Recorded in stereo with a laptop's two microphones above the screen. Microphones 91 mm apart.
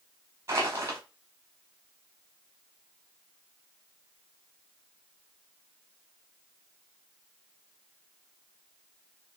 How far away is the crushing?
About 0.9 m.